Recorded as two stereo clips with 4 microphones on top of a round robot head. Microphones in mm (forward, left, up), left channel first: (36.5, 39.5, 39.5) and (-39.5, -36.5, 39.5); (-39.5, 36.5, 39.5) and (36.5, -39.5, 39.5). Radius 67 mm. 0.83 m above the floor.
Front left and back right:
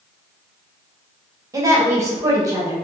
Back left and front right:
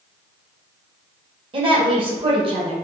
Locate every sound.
1.5 s a woman speaking: 80° right, 1.5 m